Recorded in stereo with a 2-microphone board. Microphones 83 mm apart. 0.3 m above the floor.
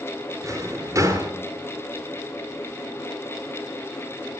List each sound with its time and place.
0.4 s a drawer: 40° right (ahead or behind), 2 m